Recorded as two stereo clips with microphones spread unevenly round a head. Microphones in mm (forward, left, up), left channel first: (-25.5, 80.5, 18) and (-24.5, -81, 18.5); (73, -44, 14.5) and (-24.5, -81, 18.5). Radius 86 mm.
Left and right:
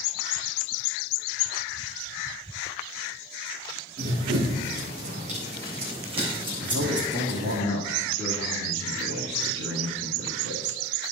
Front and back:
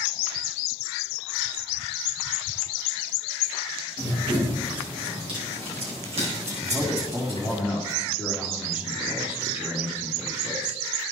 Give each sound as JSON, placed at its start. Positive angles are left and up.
{"t": 4.0, "sound": "running footsteps", "azimuth_deg": -115, "distance_m": 3.5}
{"t": 6.6, "sound": "a man speaking", "azimuth_deg": -85, "distance_m": 1.9}